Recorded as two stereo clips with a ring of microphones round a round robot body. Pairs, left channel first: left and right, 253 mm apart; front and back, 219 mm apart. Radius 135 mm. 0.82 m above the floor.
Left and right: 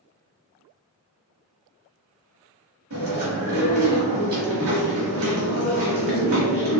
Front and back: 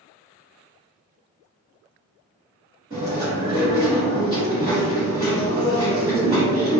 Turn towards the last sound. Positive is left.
turn(degrees=-115)